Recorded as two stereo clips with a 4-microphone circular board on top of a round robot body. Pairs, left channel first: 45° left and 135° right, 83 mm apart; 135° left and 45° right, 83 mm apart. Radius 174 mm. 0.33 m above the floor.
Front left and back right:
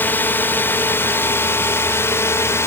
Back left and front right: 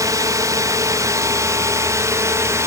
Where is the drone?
15° right; by 2.7 s 5° right.